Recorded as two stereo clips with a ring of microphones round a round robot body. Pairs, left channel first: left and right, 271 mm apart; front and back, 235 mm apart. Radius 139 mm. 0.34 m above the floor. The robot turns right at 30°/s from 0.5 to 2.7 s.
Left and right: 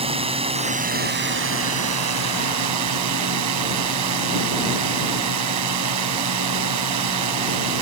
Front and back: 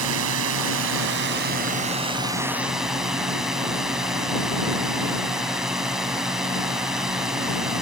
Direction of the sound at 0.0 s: 160° right.